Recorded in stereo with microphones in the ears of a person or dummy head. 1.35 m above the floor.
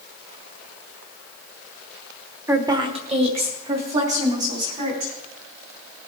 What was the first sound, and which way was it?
A woman speaking, 10° right (ahead or behind).